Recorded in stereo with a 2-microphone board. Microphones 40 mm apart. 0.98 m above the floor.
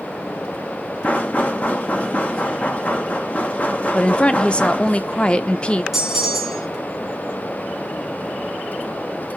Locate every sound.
1.0 s knocking: 35° left (ahead or behind), 0.9 m
3.9 s a woman speaking: 25° left (ahead or behind), 0.5 m
5.9 s a bell: 10° right (ahead or behind), 1.3 m